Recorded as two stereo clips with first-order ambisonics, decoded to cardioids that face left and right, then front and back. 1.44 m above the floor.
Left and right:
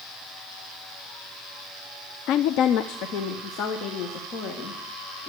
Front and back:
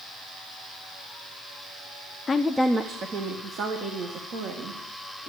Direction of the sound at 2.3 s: 75° left.